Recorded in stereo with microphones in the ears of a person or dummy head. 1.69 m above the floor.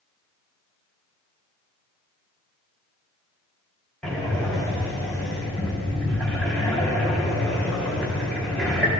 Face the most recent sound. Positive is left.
turn(degrees=5)  # may be behind; listen again after turning